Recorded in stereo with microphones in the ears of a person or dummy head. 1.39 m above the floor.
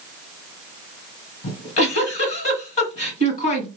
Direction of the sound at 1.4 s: 35° left (ahead or behind).